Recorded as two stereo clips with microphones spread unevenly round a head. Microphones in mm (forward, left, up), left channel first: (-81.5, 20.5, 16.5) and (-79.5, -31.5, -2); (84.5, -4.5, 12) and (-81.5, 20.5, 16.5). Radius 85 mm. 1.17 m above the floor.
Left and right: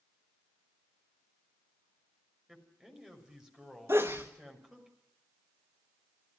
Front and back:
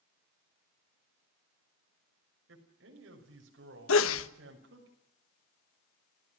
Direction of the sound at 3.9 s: 15° right.